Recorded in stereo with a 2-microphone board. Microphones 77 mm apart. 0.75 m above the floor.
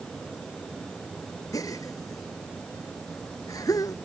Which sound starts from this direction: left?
A gasp, at 1.5 s.